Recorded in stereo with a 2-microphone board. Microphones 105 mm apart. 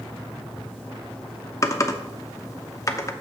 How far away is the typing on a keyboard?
About 0.8 m.